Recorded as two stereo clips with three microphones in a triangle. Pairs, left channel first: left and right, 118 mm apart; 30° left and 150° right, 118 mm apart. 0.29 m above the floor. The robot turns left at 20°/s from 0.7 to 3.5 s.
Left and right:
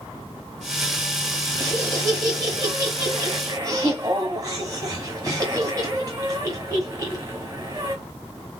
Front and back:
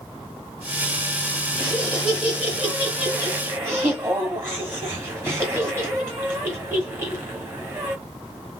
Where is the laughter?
65° right, 1.0 m; by 8.0 s 105° right, 1.0 m.